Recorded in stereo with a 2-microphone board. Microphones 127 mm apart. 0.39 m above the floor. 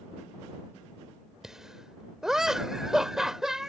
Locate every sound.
1.4 s laughter: 5° right (ahead or behind)